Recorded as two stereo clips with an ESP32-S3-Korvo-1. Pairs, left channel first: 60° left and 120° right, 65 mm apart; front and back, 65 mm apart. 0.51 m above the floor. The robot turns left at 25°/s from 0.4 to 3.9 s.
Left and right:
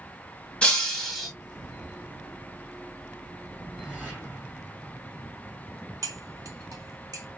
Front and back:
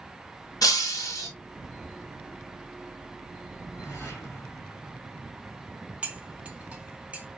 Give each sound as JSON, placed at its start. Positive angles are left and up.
{"t": 0.6, "sound": "breaking glass", "azimuth_deg": -10, "distance_m": 1.8}
{"t": 3.6, "sound": "a whoosh", "azimuth_deg": -40, "distance_m": 3.0}
{"t": 6.0, "sound": "cutlery clinking", "azimuth_deg": -115, "distance_m": 1.0}